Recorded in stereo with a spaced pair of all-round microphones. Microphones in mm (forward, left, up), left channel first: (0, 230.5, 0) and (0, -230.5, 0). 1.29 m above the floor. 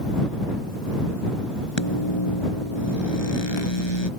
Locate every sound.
1.8 s a microwave: 70° left (ahead or behind)